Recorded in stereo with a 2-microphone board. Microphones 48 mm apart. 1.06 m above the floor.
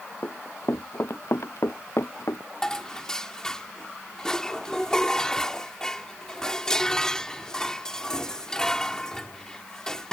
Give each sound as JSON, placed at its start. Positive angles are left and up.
{"t": 0.2, "sound": "running footsteps", "side_deg": 55}
{"t": 2.6, "sound": "dishes clattering", "side_deg": 15}